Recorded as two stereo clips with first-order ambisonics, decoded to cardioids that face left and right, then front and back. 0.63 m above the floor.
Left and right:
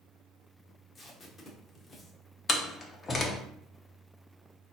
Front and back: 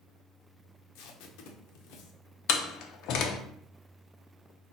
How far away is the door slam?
About 0.6 m.